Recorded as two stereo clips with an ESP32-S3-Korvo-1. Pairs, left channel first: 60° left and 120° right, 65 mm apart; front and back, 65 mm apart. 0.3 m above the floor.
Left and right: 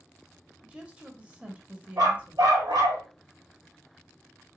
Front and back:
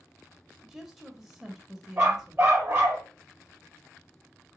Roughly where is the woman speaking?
Right.